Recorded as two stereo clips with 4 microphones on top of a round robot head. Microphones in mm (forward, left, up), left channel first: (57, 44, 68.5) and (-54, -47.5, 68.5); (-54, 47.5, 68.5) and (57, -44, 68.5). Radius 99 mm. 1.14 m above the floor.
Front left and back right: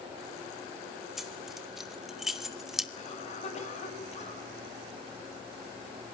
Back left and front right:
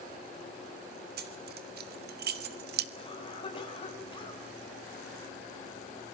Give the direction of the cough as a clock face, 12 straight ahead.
9 o'clock.